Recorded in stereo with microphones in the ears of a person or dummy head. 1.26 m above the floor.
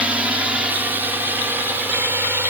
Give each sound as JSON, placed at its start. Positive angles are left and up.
{"t": 0.0, "sound": "a drone", "side_deg": -10}